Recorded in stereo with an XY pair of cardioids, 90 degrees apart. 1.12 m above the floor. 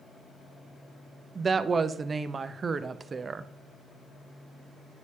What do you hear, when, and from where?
1.4 s a woman speaking: 40° right, 0.6 m